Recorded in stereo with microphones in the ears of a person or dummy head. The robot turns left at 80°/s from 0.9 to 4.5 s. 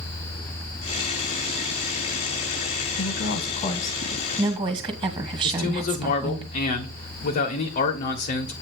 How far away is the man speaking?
About 1.2 m.